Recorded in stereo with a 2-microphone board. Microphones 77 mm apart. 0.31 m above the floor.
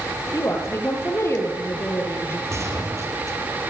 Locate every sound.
0.3 s a woman speaking: 40° left (ahead or behind), 7 m; by 2.4 s 35° left (ahead or behind), 6 m
2.5 s a gunshot: 40° right (ahead or behind), 7 m